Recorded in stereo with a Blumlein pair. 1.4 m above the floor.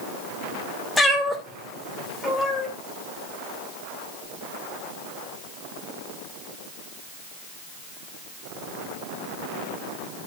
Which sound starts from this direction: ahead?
A cat meowing, at 1.0 s.